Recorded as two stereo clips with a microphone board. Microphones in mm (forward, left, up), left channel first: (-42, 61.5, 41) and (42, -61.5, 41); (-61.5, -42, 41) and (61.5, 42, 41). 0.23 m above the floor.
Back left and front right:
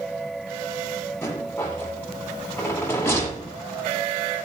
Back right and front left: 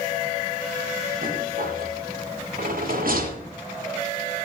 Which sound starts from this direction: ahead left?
A rattle, at 1.2 s.